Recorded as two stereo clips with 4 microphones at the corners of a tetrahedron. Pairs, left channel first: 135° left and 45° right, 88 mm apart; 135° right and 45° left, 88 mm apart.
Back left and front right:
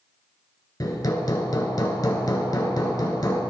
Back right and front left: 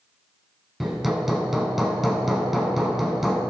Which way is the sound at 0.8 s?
130° left.